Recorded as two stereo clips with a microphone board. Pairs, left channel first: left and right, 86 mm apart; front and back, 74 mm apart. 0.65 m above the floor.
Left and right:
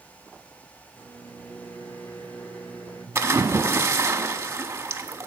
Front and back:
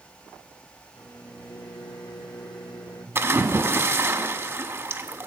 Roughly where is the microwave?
Ahead.